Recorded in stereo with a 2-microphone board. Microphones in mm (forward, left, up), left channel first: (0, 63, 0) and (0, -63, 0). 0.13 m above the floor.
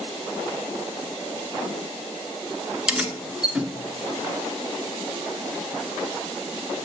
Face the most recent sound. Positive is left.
turn(degrees=-5)  # may be behind; listen again after turning